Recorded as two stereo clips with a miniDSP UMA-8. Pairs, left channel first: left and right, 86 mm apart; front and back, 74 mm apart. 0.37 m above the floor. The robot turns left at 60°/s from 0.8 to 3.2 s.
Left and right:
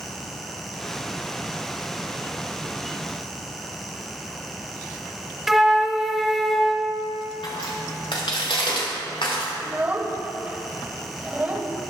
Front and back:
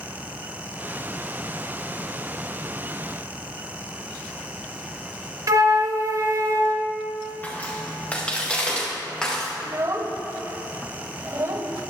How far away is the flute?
About 0.7 m.